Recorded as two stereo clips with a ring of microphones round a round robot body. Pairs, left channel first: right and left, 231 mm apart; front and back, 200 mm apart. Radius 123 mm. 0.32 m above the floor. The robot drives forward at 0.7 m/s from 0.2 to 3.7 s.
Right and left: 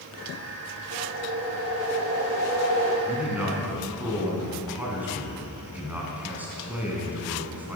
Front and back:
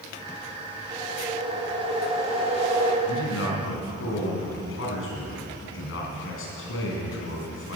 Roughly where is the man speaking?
Ahead.